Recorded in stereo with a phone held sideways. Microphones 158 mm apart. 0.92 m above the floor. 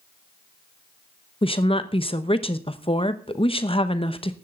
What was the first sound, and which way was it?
A woman speaking, 35° left (ahead or behind).